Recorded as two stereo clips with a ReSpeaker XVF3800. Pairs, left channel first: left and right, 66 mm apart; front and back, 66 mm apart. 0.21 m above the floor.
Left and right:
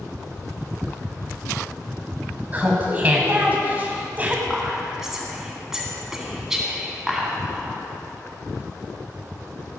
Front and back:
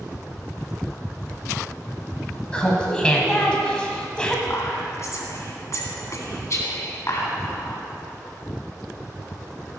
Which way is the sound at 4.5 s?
10° right.